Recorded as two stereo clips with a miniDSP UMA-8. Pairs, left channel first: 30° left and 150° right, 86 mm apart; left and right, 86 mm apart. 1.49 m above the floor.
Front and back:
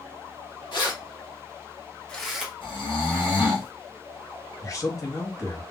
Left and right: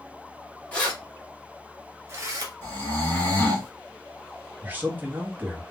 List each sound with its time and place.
0.7 s keys jangling: 20° left, 1.3 m; by 2.5 s 75° right, 0.8 m
2.6 s snoring: 30° left, 1.4 m
4.6 s a man speaking: 20° right, 0.9 m